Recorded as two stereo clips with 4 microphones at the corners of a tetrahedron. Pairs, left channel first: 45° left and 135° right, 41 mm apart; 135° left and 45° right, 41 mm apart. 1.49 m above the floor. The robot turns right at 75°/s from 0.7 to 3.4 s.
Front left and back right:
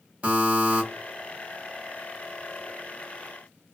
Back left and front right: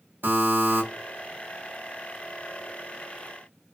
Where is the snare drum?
No snare drum in this recording.